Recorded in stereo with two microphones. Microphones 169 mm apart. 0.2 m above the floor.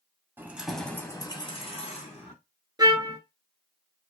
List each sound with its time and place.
0.4 s keys jangling: 15° right (ahead or behind), 0.7 m; by 2.3 s 45° left (ahead or behind), 1.1 m
2.8 s a trumpet: 25° right (ahead or behind), 0.9 m